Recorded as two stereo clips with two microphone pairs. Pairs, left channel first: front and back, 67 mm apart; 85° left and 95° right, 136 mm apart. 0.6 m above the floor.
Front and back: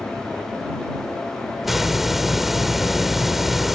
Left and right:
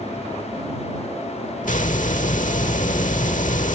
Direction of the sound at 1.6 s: 95° left.